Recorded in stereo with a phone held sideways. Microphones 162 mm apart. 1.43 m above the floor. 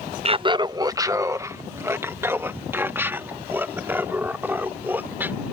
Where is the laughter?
35° right (ahead or behind); by 5.4 s 10° right (ahead or behind).